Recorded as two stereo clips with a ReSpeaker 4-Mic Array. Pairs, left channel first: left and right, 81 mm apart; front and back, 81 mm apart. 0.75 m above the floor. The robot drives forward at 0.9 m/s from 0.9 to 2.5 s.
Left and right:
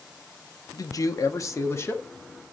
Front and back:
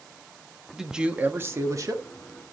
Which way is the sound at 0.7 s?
95° left.